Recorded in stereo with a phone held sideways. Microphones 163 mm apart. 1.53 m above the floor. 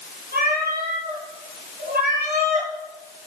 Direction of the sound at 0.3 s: 80° right.